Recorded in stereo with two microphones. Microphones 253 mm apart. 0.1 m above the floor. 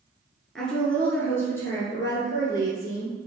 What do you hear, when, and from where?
0.6 s a woman speaking: centre (ahead or behind), 1.1 m; by 3.1 s 15° left (ahead or behind), 2.5 m